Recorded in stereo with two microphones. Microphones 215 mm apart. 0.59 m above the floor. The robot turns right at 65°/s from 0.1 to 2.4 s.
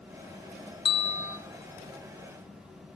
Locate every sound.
0.8 s a bell: 50° left, 0.8 m; by 1.4 s 85° left, 0.8 m